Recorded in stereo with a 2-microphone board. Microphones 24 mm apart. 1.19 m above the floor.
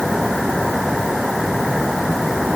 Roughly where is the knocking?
No knocking in this recording.